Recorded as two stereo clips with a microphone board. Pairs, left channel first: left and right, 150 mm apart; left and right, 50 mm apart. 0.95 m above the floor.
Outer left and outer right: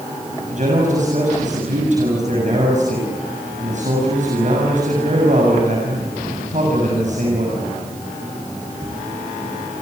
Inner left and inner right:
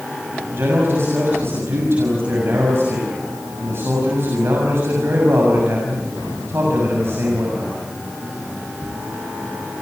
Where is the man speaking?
55° right (ahead or behind), 7 m.